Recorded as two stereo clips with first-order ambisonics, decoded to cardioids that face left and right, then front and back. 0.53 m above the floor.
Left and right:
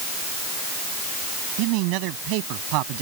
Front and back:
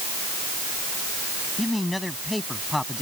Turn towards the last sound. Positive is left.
turn(degrees=-85)